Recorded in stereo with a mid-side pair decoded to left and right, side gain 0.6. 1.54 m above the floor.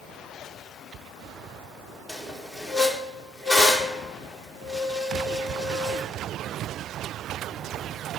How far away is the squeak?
About 1.4 m.